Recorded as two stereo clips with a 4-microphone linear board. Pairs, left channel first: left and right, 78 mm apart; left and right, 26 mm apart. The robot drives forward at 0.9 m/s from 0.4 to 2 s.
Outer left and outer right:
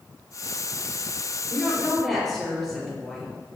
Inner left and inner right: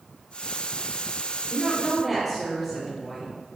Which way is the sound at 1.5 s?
Centre (ahead or behind).